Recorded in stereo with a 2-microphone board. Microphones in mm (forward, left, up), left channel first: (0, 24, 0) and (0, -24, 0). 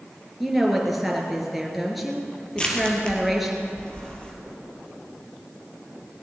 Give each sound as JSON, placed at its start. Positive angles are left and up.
{"t": 0.4, "sound": "a woman speaking", "side_deg": 0, "distance_m": 3.5}
{"t": 2.6, "sound": "crushing", "side_deg": 20, "distance_m": 2.5}